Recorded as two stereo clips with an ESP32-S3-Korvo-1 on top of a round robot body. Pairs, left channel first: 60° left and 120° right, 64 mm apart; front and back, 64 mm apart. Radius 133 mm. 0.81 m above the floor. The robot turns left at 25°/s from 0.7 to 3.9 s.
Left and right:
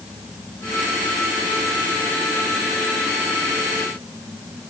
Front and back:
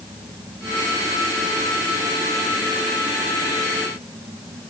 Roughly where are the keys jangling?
No keys jangling in this recording.